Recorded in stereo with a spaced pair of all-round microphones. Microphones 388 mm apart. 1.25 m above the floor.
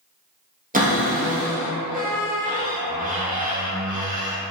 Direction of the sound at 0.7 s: 20° right (ahead or behind).